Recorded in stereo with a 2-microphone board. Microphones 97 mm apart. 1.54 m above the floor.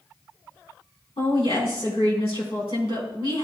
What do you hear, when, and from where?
1.2 s a woman speaking: 80° left, 4 m